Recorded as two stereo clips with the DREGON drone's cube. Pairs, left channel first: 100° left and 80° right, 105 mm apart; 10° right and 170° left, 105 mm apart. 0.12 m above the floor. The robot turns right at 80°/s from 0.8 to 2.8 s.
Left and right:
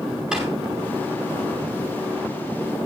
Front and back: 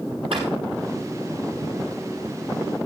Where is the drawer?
160° right, 8 m.